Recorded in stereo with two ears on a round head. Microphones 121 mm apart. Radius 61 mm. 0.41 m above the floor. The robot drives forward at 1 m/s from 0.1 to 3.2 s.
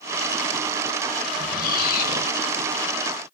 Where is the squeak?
60° left (ahead or behind), 1.1 m; by 2.3 s 55° left (ahead or behind), 1.2 m.